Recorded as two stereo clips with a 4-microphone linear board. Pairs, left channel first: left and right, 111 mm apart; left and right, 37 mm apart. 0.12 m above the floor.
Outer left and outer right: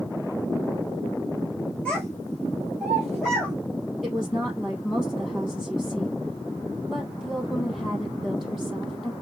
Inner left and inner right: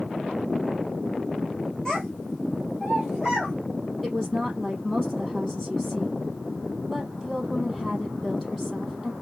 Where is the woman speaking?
5° right (ahead or behind), 3.5 m.